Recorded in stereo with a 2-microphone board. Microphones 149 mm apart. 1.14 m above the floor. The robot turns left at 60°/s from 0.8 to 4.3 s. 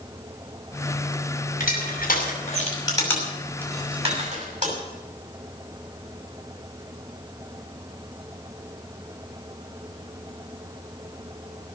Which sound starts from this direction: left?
Crushing, at 1.6 s.